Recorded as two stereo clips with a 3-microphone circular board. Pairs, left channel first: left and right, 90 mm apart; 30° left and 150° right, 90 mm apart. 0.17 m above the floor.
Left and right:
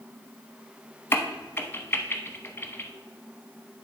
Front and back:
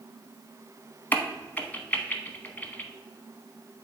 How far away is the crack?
About 0.7 m.